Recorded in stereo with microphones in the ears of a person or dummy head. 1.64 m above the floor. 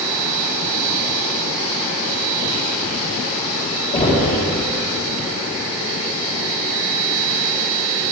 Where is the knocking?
30° left (ahead or behind), 4 m.